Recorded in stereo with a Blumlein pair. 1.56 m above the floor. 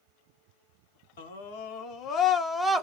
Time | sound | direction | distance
1.2 | a scream | 60° left | 1.0 m